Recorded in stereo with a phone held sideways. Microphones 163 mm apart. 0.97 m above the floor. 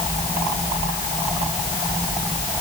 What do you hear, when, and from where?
Only background noise.